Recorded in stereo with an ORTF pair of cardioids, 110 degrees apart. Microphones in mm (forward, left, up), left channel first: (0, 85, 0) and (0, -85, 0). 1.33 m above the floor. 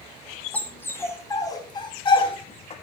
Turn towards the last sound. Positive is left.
turn(degrees=40)